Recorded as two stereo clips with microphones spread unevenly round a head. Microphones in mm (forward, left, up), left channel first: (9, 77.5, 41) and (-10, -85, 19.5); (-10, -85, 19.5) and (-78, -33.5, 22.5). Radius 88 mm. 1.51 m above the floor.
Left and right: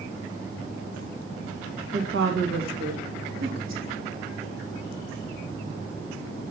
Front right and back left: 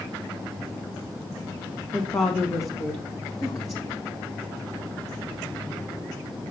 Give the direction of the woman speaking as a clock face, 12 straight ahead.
3 o'clock.